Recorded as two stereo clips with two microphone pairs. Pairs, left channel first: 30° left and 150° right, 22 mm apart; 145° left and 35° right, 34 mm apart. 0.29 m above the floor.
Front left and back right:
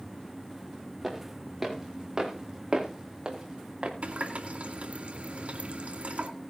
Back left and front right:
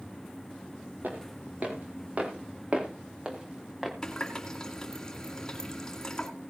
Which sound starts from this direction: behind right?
A running tap, at 4.0 s.